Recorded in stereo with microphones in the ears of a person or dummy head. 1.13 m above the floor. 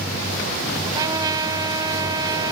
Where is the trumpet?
20° right (ahead or behind).